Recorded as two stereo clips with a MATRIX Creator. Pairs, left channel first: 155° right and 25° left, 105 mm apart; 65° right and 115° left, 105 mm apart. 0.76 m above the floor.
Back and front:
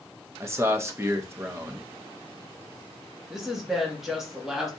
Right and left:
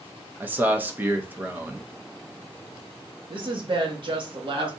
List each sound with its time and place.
0.4 s a man speaking: 60° left, 0.7 m
3.3 s a woman speaking: 110° left, 1.3 m